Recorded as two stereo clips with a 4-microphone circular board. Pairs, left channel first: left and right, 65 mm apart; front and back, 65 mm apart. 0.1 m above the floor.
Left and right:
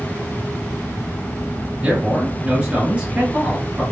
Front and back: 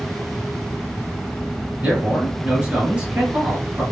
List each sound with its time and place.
1.8 s a man speaking: 135° right, 1.3 m